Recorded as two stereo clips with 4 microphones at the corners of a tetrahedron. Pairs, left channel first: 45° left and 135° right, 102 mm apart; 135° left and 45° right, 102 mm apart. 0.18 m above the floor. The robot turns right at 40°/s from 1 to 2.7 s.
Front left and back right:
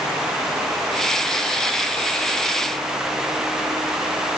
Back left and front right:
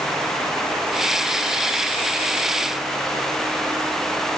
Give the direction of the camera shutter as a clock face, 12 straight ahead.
I don't hear a camera shutter.